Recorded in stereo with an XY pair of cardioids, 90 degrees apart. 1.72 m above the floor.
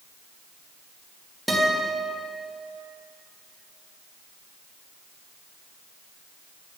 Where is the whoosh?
No whoosh in this recording.